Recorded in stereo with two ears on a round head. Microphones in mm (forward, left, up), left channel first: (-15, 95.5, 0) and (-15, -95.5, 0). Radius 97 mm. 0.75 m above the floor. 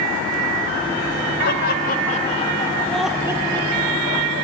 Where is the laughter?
50° left (ahead or behind), 3 m; by 4.4 s 50° right (ahead or behind), 2.5 m.